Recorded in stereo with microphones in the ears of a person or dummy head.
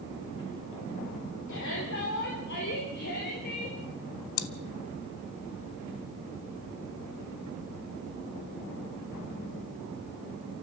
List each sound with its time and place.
1.5 s a shout: 70° left (ahead or behind), 3.5 m; by 3.8 s 55° left (ahead or behind), 4.5 m
4.4 s chewing: 85° left, 0.9 m